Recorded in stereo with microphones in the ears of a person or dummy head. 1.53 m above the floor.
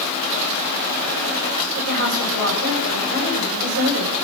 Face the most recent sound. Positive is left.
turn(degrees=-50)  # may be behind; listen again after turning